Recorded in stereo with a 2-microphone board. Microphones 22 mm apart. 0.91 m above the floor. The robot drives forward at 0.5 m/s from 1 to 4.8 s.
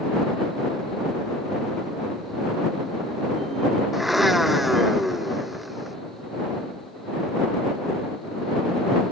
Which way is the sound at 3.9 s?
5° right (ahead or behind).